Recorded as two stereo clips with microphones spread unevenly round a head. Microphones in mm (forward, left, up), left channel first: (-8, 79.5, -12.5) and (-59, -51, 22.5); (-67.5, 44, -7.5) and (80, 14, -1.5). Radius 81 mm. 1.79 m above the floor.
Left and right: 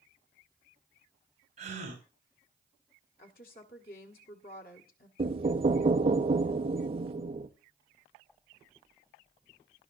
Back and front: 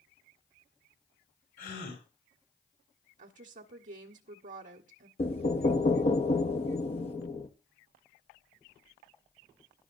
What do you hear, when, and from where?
1.6 s a gasp: 150° right, 7.5 m
3.2 s a woman speaking: 30° left, 1.5 m
5.2 s knocking: 140° right, 1.0 m